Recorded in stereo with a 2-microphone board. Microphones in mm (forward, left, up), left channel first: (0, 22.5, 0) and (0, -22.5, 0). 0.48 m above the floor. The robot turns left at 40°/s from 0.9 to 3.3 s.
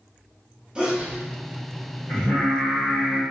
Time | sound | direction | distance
0.8 | a sneeze | 20° right (ahead or behind) | 0.8 m
2.1 | singing | 60° left | 1.8 m